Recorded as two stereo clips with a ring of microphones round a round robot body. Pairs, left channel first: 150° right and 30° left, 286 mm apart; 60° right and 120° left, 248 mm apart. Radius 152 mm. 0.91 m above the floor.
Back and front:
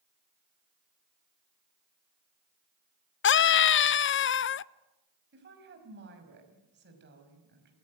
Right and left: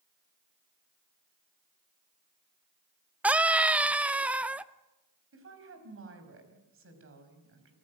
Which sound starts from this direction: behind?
A scream, at 3.2 s.